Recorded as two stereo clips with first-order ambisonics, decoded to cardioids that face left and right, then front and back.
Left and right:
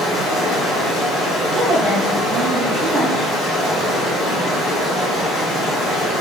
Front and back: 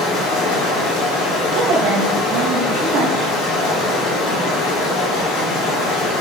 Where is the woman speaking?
155° right, 1.2 m.